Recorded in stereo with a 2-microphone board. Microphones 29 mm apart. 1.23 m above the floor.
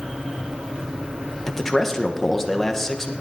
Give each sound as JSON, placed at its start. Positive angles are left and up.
{"t": 1.5, "sound": "a man speaking", "side_deg": 10, "distance_m": 1.3}